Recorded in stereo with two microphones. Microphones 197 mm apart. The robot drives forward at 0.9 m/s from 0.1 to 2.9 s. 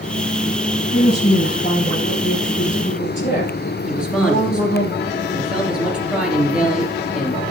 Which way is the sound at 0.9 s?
50° left (ahead or behind).